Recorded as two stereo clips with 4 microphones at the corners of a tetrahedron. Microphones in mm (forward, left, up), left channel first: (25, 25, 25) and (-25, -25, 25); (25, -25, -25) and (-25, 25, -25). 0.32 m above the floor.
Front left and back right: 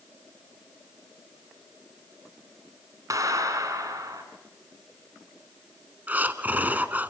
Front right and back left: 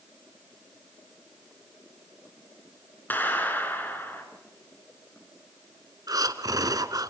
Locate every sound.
3.1 s a clap: 105° right, 3.5 m
6.1 s breathing: 160° left, 1.0 m